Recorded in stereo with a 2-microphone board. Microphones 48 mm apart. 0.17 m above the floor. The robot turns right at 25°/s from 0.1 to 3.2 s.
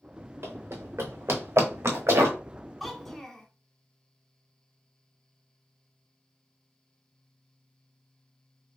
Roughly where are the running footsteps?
Right.